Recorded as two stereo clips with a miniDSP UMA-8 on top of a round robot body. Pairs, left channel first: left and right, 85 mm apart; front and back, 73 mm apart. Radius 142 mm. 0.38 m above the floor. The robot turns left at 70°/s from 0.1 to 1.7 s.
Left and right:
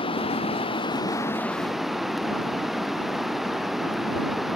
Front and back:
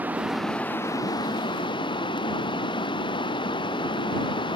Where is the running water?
110° left; by 4.6 s straight ahead.